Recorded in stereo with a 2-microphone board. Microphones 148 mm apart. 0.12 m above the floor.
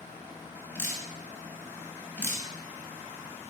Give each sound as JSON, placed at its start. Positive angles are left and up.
{"t": 0.8, "sound": "dripping", "side_deg": 15, "distance_m": 0.9}